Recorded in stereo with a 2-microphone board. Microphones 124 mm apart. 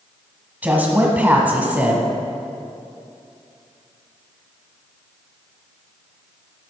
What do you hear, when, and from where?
0.6 s a woman speaking: 15° right (ahead or behind), 1.2 m